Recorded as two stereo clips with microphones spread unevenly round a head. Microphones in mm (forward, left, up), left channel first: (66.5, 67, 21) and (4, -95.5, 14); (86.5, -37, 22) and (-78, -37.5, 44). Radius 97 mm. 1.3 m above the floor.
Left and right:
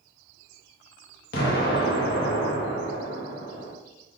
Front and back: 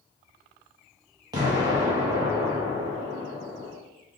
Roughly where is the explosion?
Left.